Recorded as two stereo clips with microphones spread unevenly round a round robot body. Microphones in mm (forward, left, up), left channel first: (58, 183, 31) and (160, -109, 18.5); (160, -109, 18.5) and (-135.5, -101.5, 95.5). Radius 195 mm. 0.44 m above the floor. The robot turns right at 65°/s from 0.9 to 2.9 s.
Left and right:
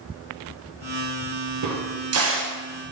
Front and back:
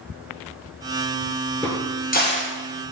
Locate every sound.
1.6 s a crack: 80° right, 2 m; by 2.6 s 20° right, 2 m